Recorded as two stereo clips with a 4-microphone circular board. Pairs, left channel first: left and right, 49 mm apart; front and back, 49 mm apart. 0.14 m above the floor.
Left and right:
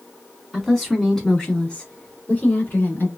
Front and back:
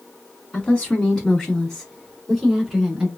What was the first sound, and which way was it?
A woman speaking, straight ahead.